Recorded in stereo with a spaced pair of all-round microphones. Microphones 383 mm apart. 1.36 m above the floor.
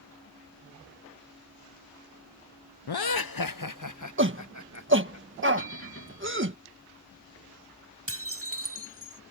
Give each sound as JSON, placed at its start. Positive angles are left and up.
{"t": 2.9, "sound": "laughter", "side_deg": 75}
{"t": 4.2, "sound": "a shout", "side_deg": -30}
{"t": 5.6, "sound": "a bell", "side_deg": 35}
{"t": 8.1, "sound": "dishes clattering", "side_deg": -35}